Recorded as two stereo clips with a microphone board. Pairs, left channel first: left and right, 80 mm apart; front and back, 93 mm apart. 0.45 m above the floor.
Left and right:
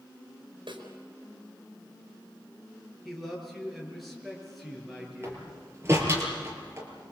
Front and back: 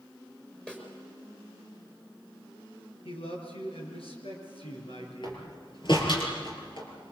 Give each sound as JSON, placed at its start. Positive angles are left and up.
{"t": 0.7, "sound": "a snare drum", "azimuth_deg": -75, "distance_m": 4.5}
{"t": 3.0, "sound": "a man speaking", "azimuth_deg": 0, "distance_m": 7.0}
{"t": 5.2, "sound": "a door slam", "azimuth_deg": -30, "distance_m": 5.5}